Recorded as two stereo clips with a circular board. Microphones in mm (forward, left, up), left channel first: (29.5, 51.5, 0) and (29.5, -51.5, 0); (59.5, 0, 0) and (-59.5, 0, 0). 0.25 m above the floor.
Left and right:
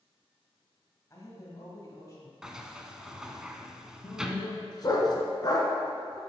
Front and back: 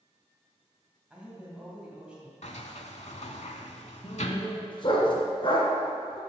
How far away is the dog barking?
About 1.3 m.